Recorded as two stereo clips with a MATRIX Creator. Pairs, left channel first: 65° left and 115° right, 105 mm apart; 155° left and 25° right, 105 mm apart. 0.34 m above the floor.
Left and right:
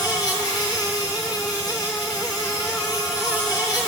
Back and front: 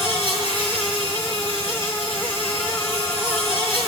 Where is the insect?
15° left, 7.5 m.